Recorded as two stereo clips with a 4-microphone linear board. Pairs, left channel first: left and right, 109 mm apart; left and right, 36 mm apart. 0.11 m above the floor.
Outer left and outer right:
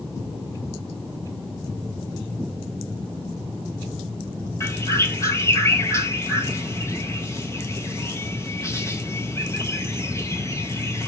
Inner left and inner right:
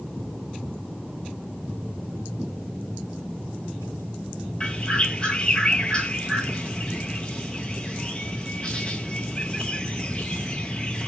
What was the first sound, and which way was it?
A bird, 25° left (ahead or behind).